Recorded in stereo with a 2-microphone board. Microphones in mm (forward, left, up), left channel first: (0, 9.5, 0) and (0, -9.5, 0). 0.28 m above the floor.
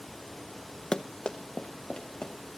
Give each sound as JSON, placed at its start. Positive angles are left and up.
{"t": 0.9, "sound": "running footsteps", "side_deg": 50, "distance_m": 0.5}